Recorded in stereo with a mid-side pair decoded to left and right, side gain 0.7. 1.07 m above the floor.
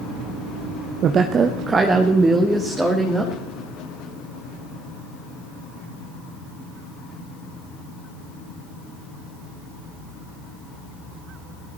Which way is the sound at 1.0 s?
45° right.